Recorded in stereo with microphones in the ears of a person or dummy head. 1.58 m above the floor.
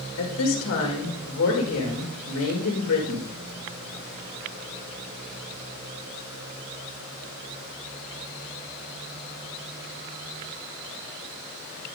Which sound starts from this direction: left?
A woman speaking, at 0.2 s.